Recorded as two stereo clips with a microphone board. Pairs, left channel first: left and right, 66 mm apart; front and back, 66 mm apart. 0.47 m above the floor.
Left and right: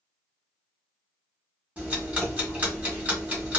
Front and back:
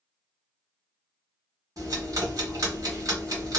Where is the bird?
No bird in this recording.